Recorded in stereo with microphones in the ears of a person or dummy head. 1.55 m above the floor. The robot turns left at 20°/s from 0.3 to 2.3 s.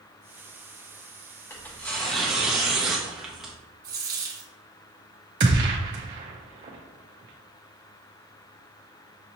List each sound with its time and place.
1.5 s tearing paper: 15° left (ahead or behind), 1.0 m; by 3.5 s centre (ahead or behind), 1.0 m
3.8 s a dropped coin: 20° right (ahead or behind), 1.3 m
5.4 s a gunshot: 25° right (ahead or behind), 0.6 m